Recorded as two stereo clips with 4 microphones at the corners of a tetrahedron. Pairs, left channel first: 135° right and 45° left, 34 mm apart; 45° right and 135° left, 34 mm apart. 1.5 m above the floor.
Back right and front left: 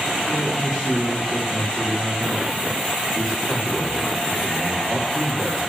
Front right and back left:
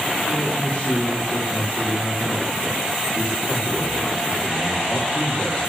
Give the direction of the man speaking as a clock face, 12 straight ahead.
3 o'clock.